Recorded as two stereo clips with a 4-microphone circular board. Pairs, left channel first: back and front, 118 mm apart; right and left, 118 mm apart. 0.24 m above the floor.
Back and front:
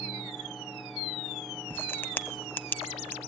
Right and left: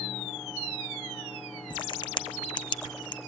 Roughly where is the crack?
Behind right.